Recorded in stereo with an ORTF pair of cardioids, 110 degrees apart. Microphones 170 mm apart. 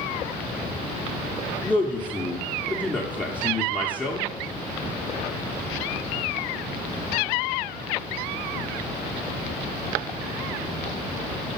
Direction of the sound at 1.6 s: 10° left.